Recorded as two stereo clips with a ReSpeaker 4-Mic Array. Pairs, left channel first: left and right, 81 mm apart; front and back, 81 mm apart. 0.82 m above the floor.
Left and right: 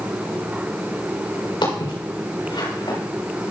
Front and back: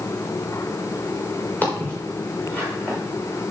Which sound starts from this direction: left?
Footsteps, at 1.6 s.